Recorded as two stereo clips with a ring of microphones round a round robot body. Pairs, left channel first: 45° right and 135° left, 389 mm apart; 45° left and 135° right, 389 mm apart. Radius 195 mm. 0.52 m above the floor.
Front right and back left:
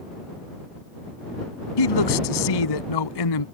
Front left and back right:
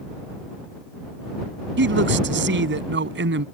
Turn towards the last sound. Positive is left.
turn(degrees=-70)